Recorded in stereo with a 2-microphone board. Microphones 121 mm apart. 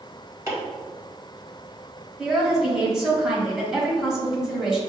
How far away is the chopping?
About 1.6 m.